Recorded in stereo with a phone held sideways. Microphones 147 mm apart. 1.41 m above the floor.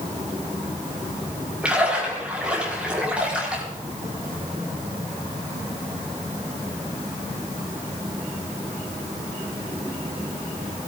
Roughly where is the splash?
Centre.